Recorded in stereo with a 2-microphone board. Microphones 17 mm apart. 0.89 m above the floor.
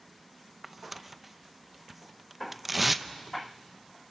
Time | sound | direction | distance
0.6 | tearing paper | 10° right (ahead or behind) | 0.5 m